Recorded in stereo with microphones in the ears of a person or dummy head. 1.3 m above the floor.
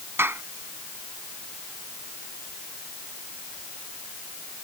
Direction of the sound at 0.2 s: 10° right (ahead or behind).